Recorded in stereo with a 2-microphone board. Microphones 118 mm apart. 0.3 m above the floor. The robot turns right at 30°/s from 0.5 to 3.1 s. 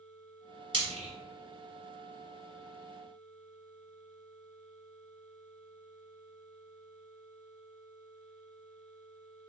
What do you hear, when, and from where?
0.7 s frying: 45° right (ahead or behind), 1.1 m; by 1.1 s 55° right (ahead or behind), 1.1 m